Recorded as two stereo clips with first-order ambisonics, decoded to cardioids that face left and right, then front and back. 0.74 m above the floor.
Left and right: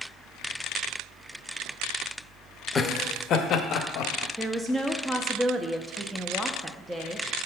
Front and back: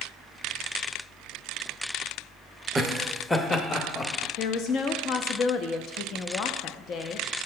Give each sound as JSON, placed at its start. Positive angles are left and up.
{"t": 2.8, "sound": "laughter", "azimuth_deg": 110, "distance_m": 0.6}
{"t": 4.4, "sound": "a woman speaking", "azimuth_deg": -10, "distance_m": 0.6}